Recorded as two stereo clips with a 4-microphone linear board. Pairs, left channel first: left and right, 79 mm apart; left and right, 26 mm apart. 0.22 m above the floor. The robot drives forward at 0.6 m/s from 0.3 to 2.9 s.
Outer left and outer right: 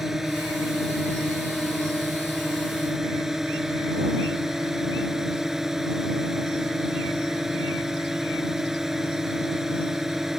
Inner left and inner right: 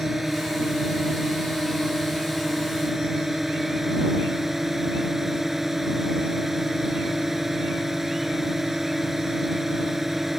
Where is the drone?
5° right (ahead or behind).